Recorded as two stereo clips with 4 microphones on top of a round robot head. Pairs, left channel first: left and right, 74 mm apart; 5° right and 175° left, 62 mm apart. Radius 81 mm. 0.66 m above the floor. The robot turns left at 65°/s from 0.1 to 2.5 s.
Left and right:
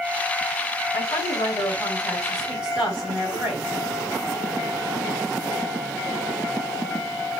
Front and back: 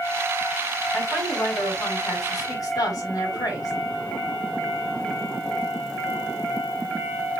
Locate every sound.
0.9 s a woman speaking: 80° left, 5 m; by 3.7 s 25° right, 5 m